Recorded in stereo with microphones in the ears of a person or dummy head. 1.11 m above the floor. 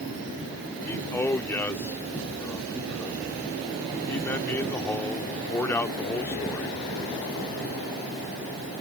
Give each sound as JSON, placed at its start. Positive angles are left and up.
{"t": 0.8, "sound": "a man speaking", "side_deg": 10}